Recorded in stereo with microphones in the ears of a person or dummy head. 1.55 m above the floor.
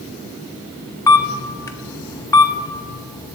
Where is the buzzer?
I don't hear a buzzer.